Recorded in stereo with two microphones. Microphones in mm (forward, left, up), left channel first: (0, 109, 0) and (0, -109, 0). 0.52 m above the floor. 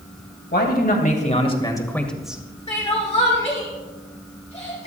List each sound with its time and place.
0.5 s a man speaking: 50° left (ahead or behind), 2.5 m; by 2.4 s 10° right (ahead or behind), 1.9 m
2.7 s crying: 30° left (ahead or behind), 7.5 m